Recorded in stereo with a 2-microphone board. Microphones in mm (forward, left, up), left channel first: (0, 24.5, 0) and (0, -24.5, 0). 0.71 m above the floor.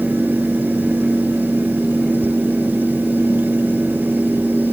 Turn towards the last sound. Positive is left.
No sound to turn to.